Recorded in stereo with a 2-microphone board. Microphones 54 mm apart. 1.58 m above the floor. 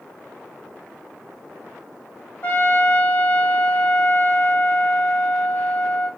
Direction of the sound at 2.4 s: 30° left (ahead or behind).